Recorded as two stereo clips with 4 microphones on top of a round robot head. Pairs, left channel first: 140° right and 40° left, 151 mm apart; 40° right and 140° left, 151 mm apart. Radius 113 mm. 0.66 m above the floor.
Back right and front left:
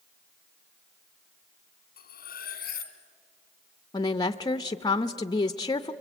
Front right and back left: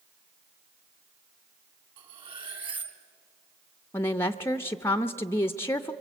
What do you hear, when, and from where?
2.0 s cutlery clinking: 165° right, 1.6 m
3.9 s a woman speaking: 100° right, 0.7 m